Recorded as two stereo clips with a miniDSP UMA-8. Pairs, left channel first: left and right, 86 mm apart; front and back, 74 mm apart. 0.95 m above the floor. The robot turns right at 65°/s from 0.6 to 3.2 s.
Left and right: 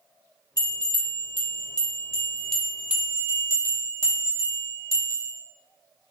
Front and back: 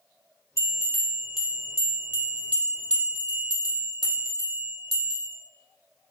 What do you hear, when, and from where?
0.6 s a bell: 45° left, 0.8 m; by 5.3 s 145° right, 0.8 m